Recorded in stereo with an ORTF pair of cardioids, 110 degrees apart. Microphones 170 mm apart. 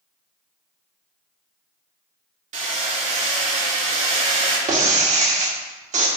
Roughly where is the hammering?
Ahead right.